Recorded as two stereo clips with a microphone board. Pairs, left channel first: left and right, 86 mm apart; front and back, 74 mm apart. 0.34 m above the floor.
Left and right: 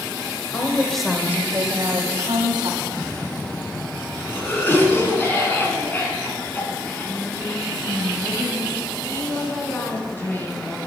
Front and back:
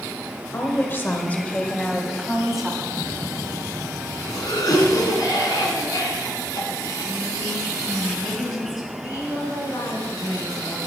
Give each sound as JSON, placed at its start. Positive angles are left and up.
{"t": 0.5, "sound": "a woman speaking", "azimuth_deg": 40, "distance_m": 1.3}
{"t": 2.8, "sound": "a cough", "azimuth_deg": 25, "distance_m": 3.0}